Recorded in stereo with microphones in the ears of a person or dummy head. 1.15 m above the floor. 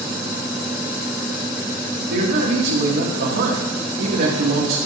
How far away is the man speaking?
About 1.9 m.